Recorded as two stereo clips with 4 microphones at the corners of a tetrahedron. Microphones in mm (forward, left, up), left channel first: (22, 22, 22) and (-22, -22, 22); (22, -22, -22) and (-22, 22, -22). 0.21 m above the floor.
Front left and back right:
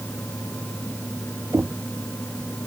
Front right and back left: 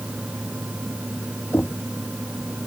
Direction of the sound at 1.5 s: 90° right.